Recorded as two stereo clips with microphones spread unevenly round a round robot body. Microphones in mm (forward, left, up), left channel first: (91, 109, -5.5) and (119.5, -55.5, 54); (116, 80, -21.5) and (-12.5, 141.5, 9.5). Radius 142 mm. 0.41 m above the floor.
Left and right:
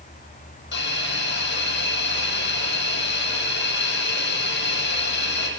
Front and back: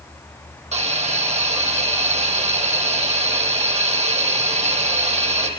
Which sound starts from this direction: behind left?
A hiss, at 0.7 s.